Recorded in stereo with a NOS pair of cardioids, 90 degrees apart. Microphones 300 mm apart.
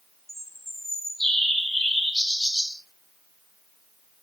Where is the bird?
Straight ahead, 0.7 m.